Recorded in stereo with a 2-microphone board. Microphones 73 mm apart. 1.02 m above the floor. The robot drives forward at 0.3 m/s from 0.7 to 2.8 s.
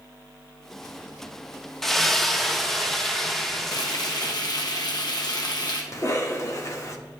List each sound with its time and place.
1.8 s a splash: 5° left (ahead or behind), 0.5 m
3.7 s frying: 65° left (ahead or behind), 1.0 m
5.9 s a cough: 40° left (ahead or behind), 1.2 m